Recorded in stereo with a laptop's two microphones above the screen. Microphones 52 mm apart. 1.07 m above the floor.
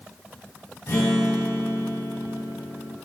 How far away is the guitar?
About 3 m.